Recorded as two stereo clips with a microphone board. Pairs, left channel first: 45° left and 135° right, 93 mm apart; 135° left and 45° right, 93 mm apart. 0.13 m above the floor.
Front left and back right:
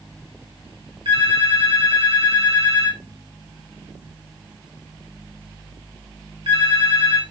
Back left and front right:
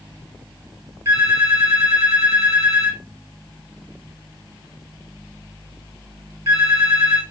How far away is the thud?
I don't hear a thud.